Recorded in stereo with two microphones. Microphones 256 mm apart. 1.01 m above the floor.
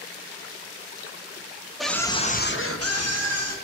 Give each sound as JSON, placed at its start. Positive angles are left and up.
{"t": 1.8, "sound": "a scream", "side_deg": 0, "distance_m": 1.3}